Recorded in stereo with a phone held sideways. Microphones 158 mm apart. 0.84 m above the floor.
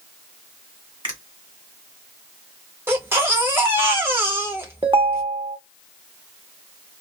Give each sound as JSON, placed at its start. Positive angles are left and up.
{"t": 1.0, "sound": "a finger snap", "side_deg": -30, "distance_m": 1.5}
{"t": 2.9, "sound": "a baby crying", "side_deg": -15, "distance_m": 0.9}
{"t": 4.8, "sound": "a ringtone", "side_deg": -35, "distance_m": 0.8}